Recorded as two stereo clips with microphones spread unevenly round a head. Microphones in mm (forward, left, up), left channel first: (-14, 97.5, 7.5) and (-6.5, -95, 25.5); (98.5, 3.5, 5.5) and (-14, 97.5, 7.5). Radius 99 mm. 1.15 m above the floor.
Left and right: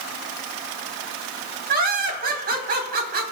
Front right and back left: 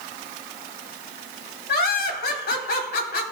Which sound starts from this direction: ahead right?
Laughter, at 1.7 s.